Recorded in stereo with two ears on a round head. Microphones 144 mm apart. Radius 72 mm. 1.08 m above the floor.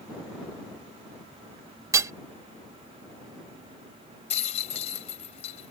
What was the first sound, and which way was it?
Hammering, 20° right (ahead or behind).